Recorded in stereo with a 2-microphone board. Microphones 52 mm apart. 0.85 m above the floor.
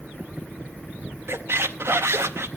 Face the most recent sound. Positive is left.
turn(degrees=-60)  # may be behind; listen again after turning